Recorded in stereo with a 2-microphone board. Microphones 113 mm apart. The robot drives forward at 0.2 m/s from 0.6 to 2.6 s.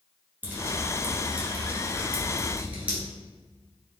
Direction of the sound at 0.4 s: 15° right (ahead or behind).